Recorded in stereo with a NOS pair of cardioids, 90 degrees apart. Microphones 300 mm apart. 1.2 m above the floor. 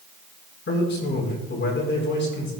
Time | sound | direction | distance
0.7 | a man speaking | 40° left | 5 m